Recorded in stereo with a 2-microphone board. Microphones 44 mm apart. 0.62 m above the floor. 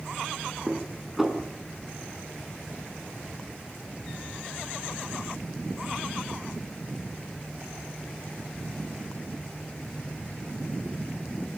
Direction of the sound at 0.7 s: 5° right (ahead or behind).